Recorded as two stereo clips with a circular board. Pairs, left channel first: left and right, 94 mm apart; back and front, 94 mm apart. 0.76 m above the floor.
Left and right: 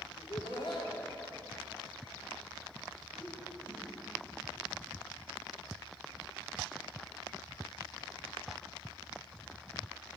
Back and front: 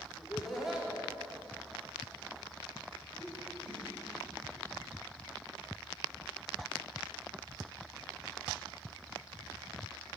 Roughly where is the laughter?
Left.